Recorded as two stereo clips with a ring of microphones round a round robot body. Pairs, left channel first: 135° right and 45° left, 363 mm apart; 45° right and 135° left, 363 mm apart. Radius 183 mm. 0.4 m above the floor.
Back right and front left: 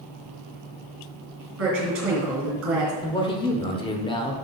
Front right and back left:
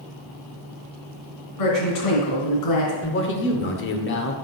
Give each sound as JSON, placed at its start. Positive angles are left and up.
{"t": 1.6, "sound": "a woman speaking", "azimuth_deg": -10, "distance_m": 3.0}
{"t": 3.0, "sound": "a man speaking", "azimuth_deg": -70, "distance_m": 1.0}